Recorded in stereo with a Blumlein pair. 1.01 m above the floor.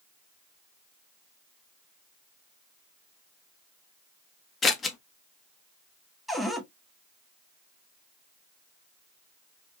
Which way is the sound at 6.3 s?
Straight ahead.